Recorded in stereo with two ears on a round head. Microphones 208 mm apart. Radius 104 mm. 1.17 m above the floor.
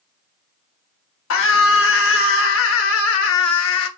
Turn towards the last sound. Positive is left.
turn(degrees=60)  # may be behind; listen again after turning